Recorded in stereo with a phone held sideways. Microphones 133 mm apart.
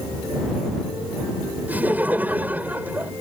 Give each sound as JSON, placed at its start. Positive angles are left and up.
{"t": 1.7, "sound": "laughter", "side_deg": -15}